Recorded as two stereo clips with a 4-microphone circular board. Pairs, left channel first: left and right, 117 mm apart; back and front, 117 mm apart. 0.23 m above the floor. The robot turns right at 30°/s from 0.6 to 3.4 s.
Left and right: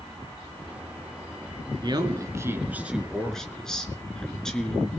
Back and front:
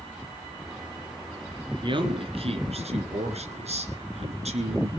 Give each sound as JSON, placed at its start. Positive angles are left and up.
{"t": 1.8, "sound": "a man speaking", "azimuth_deg": -45, "distance_m": 2.5}